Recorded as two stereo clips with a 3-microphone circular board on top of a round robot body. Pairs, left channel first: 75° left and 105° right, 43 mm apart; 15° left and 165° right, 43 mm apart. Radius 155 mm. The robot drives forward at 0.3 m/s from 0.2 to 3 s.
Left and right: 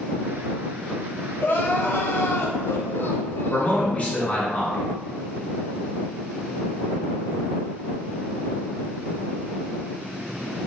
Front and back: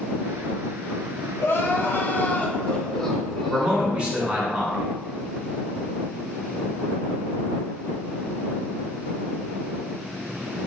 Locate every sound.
1.4 s crying: 40° left, 0.7 m; by 3.9 s 95° left, 0.5 m
3.5 s a man speaking: 130° left, 1.3 m